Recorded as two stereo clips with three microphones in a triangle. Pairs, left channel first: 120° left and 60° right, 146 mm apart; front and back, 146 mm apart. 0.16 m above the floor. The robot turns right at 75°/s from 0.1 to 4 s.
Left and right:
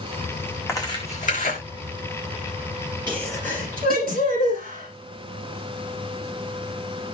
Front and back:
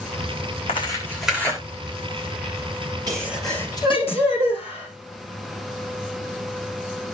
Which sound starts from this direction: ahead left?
Tearing paper, at 0.7 s.